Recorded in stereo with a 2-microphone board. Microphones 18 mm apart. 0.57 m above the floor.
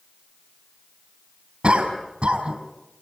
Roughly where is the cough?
Right.